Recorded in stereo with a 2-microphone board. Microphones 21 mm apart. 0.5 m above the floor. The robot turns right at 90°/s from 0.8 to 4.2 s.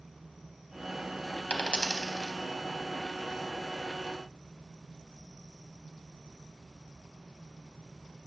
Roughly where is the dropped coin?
Left.